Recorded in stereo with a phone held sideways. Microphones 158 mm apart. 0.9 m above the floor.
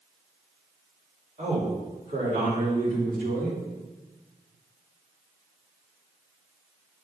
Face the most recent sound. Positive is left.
turn(degrees=-75)  # may be behind; listen again after turning